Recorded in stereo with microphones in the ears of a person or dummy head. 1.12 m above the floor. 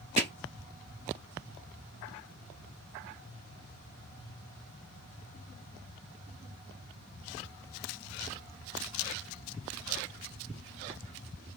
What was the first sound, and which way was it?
Hammering, 35° right (ahead or behind).